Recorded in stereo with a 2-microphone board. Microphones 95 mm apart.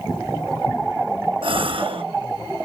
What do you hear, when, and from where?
1.4 s a gasp: 65° right (ahead or behind), 0.8 m